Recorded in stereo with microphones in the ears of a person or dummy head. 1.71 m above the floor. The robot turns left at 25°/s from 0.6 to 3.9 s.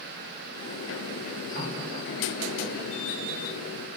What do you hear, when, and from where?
1.6 s a running tap: 30° right, 6 m; by 2.8 s 60° right, 6 m